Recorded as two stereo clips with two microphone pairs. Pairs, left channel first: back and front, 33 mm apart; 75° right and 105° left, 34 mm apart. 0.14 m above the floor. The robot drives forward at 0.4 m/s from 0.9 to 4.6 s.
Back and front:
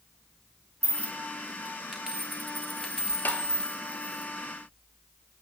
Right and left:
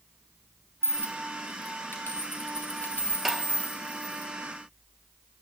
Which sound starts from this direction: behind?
Tapping, at 3.2 s.